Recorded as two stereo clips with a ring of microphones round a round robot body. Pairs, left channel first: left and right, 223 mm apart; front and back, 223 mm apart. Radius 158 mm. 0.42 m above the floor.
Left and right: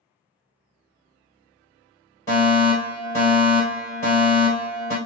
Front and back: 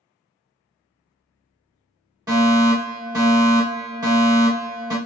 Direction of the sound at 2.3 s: 145° left.